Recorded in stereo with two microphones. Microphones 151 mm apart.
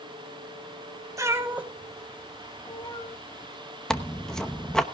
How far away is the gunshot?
No gunshot in this recording.